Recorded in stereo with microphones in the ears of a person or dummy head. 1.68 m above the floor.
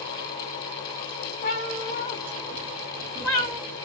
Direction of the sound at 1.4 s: 35° left (ahead or behind).